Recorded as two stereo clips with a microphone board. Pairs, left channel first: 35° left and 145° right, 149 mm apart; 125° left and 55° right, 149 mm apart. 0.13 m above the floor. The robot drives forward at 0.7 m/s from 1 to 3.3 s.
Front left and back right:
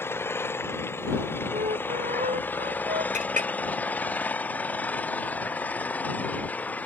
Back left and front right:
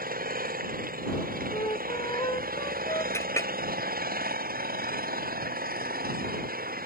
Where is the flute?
175° right.